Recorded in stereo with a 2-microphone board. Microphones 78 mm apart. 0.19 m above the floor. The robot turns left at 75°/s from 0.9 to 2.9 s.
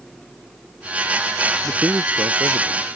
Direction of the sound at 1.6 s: 15° right.